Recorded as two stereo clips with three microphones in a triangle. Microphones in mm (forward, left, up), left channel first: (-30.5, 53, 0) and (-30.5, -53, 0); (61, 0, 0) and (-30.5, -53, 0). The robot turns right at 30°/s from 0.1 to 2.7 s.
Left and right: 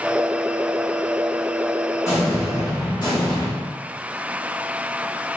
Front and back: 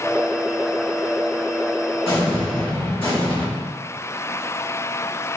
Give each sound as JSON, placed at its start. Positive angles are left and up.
{"t": 2.0, "sound": "an explosion", "azimuth_deg": 35, "distance_m": 1.3}